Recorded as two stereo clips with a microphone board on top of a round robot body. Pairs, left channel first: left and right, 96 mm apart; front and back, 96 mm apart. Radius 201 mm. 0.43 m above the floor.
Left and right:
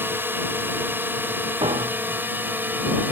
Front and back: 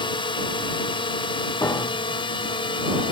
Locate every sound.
0.0 s a drone: 25° right; by 3.1 s 20° right
1.6 s a piano: 60° right